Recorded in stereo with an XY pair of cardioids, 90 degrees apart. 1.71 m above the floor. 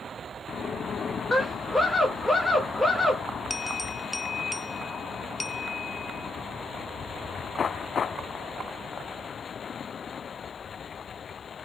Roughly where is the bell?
Ahead left.